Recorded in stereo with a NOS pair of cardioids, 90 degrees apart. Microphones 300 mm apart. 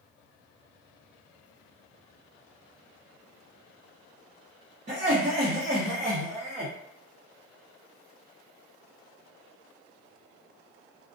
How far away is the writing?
No writing in this recording.